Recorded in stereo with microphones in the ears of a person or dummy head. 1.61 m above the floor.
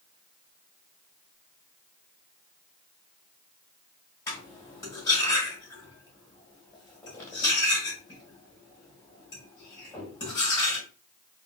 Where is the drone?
No drone in this recording.